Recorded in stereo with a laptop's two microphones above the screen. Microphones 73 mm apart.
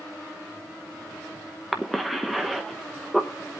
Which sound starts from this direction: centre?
A cough, at 1.7 s.